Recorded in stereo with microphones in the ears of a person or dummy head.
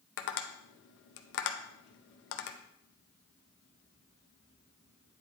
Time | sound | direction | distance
0.2 | tapping | 65° left (ahead or behind) | 0.7 m